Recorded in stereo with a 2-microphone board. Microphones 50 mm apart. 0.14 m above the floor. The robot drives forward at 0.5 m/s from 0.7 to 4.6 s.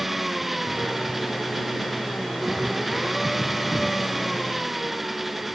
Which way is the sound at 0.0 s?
5° right (ahead or behind).